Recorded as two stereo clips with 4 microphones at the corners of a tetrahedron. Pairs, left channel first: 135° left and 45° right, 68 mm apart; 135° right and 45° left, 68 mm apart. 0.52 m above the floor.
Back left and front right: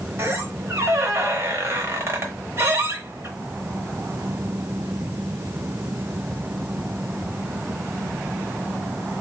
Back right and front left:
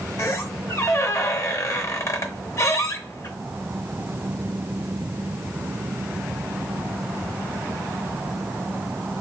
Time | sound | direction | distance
0.2 | a squeak | 95° right | 0.8 m